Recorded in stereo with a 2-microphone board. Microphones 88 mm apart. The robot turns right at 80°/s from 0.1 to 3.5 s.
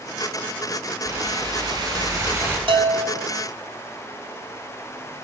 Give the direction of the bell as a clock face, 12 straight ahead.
3 o'clock.